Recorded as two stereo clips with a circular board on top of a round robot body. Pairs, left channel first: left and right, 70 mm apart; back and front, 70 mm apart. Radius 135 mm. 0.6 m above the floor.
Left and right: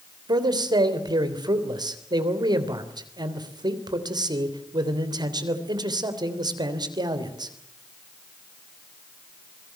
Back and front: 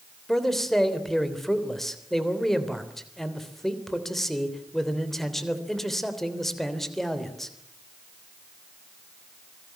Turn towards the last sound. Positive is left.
turn(degrees=-95)